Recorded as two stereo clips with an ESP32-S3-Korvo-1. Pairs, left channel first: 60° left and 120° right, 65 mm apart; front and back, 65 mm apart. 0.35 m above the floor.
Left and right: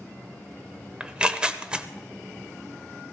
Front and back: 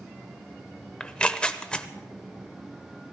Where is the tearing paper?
60° right, 0.7 m.